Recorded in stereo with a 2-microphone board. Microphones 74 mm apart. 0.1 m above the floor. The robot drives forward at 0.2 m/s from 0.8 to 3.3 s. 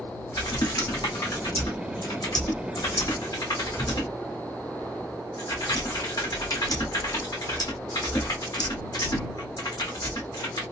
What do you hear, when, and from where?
0.3 s typing on a keyboard: 80° left, 1.1 m; by 10.6 s 60° left (ahead or behind), 1.2 m